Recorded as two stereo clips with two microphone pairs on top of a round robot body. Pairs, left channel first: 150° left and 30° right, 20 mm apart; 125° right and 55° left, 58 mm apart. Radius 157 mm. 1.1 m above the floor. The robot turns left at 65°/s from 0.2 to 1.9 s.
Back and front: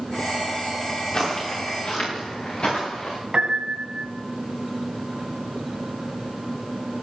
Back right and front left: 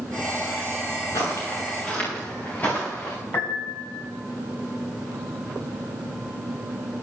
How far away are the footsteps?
About 6 m.